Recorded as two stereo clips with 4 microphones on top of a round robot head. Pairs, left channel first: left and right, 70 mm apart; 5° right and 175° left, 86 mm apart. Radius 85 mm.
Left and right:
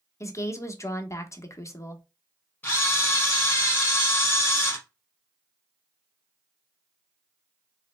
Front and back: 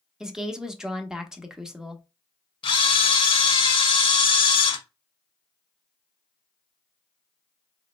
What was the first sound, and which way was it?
A woman speaking, 95° left.